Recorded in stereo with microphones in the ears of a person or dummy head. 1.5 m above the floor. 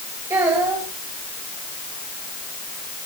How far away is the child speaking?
About 4 m.